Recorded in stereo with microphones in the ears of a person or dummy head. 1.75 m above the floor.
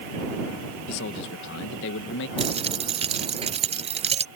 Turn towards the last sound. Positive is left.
turn(degrees=-30)  # may be behind; listen again after turning